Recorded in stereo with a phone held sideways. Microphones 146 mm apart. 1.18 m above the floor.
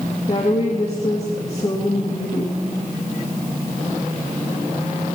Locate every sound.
0.3 s a woman speaking: 50° left (ahead or behind), 2.5 m